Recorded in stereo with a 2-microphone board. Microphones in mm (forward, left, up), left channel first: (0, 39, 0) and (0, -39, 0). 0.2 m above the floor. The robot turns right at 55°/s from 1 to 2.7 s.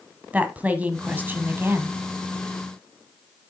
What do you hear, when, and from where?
0.3 s a woman speaking: 20° right (ahead or behind), 1.1 m; by 2.0 s 30° right (ahead or behind), 1.1 m